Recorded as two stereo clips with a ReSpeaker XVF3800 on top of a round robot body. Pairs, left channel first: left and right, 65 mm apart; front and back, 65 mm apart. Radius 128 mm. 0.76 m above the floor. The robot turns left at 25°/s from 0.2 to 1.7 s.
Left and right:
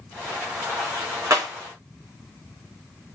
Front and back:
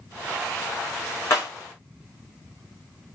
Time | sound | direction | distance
1.3 | breaking glass | 50° right | 6 m